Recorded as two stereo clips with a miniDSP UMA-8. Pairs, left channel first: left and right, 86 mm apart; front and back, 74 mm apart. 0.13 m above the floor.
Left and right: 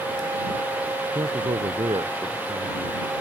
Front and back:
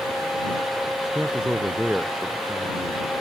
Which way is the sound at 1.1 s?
100° right.